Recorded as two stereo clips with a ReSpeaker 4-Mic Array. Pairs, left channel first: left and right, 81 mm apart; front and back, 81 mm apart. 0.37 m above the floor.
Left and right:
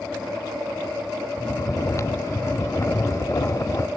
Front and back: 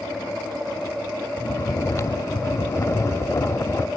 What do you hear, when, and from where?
1.4 s snoring: 45° left, 0.7 m